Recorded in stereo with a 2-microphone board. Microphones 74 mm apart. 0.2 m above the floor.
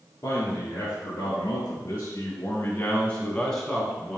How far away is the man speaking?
About 2.5 m.